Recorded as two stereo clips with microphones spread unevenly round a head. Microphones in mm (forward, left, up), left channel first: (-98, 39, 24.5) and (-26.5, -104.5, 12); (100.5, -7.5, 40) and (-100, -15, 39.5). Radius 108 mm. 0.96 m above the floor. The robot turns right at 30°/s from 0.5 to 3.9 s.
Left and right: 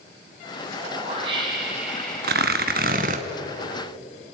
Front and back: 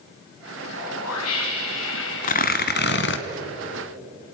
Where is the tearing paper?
40° right, 1.4 m; by 3.2 s 10° right, 1.4 m.